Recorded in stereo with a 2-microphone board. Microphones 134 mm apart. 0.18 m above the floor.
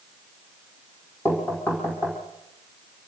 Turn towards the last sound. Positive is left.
turn(degrees=15)  # may be behind; listen again after turning